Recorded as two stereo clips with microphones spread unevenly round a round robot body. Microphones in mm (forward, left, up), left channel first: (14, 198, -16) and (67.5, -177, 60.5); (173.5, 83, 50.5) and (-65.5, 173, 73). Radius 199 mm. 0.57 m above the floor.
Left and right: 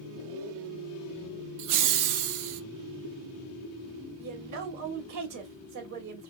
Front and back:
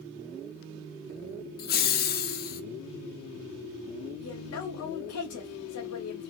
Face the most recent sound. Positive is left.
turn(degrees=-35)